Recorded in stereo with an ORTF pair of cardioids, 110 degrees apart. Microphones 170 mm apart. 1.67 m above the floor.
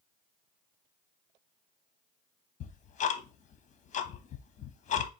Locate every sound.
2.6 s ticking: 45° left, 0.6 m